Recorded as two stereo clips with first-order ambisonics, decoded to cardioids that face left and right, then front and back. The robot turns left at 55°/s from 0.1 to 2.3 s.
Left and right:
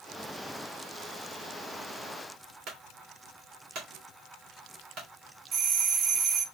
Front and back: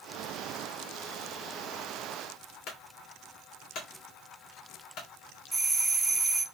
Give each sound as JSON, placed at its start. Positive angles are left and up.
{"t": 2.7, "sound": "a clunk", "azimuth_deg": -45, "distance_m": 2.0}
{"t": 5.5, "sound": "a doorbell", "azimuth_deg": -100, "distance_m": 0.6}